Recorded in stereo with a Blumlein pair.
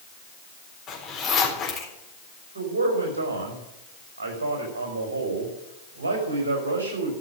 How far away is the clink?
I don't hear a clink.